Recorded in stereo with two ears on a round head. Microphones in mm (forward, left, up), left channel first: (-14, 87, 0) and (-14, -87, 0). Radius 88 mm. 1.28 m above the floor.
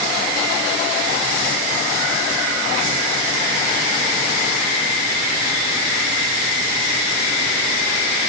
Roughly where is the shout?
No shout in this recording.